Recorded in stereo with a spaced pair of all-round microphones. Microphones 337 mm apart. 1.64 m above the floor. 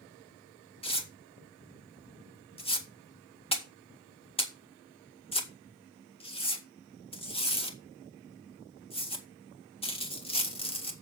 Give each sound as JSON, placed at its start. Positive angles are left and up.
{"t": 0.8, "sound": "tearing paper", "side_deg": 15, "distance_m": 1.9}